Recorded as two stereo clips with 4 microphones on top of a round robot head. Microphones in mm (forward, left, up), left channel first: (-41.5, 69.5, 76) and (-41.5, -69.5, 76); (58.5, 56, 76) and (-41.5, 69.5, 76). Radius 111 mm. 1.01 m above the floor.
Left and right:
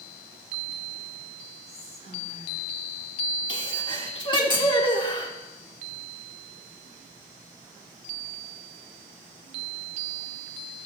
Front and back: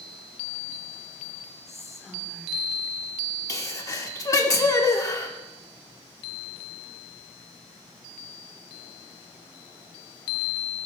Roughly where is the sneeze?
Ahead left.